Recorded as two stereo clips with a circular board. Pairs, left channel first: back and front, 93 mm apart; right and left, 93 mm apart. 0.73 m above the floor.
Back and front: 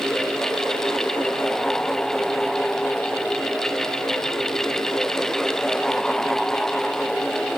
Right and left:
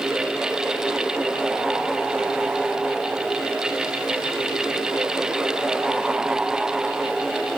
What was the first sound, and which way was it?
Only background noise.